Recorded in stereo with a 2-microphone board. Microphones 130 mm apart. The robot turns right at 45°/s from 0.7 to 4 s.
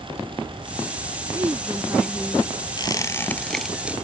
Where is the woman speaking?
35° right; by 2.5 s 15° left.